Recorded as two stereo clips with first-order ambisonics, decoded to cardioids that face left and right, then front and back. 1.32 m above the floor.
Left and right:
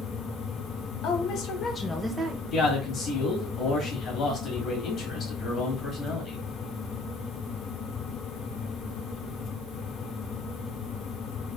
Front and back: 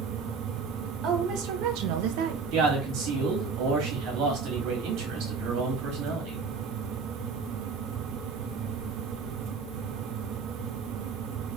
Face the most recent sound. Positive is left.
turn(degrees=150)